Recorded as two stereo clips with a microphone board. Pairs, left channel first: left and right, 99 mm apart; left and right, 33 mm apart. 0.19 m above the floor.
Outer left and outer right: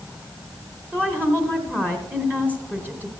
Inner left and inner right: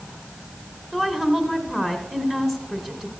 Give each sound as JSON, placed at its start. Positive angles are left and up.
{"t": 0.9, "sound": "a woman speaking", "side_deg": -20, "distance_m": 1.3}